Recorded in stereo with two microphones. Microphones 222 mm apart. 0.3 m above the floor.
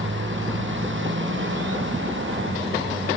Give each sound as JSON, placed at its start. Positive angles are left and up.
{"t": 0.0, "sound": "a motorcycle", "side_deg": -60}